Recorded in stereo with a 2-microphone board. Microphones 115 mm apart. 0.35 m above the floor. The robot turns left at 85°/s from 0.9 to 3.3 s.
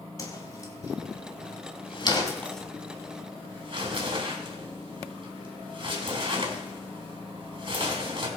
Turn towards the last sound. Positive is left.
turn(degrees=-50)  # may be behind; listen again after turning